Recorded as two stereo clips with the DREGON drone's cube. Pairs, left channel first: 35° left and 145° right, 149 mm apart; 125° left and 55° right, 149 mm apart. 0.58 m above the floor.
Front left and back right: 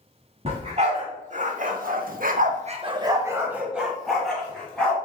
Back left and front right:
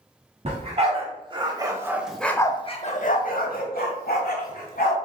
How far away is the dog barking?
About 1.3 m.